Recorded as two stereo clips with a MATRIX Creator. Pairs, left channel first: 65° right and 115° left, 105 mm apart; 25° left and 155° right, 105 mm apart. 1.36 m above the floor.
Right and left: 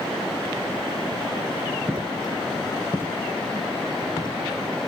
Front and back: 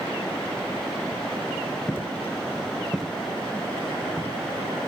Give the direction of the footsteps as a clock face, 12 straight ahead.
10 o'clock.